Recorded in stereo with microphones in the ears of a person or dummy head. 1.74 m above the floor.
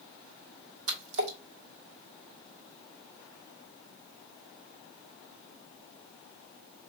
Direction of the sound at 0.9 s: 75° right (ahead or behind).